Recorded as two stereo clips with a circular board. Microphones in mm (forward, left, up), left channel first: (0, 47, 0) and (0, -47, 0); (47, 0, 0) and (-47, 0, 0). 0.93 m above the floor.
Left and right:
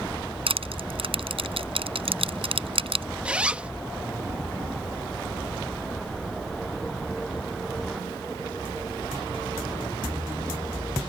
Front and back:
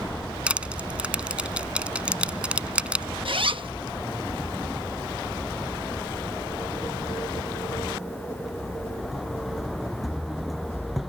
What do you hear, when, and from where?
0.5 s crushing: 100° right
3.2 s a zipper: 165° right